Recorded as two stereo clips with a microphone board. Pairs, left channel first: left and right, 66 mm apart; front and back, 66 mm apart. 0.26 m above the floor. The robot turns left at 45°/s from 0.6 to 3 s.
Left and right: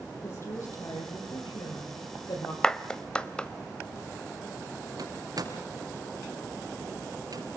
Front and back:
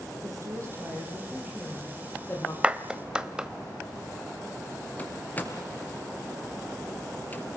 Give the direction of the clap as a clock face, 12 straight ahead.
7 o'clock.